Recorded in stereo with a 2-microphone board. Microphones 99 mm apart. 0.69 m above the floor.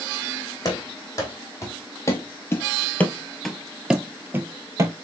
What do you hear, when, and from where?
0.7 s running footsteps: 35° left (ahead or behind), 1.8 m; by 5.0 s 30° right (ahead or behind), 0.9 m